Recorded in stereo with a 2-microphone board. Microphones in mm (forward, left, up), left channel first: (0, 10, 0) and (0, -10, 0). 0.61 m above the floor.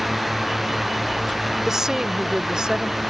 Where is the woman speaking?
25° right (ahead or behind); by 3.0 s 45° right (ahead or behind).